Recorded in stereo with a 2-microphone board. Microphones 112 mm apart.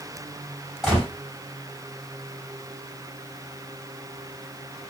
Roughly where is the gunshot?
Centre.